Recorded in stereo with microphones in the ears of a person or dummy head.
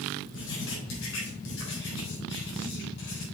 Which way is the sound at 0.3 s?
70° left (ahead or behind).